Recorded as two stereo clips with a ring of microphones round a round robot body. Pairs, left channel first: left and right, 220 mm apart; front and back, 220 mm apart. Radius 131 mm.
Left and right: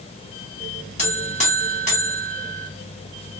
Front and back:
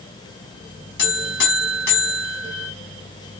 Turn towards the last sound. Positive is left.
turn(degrees=35)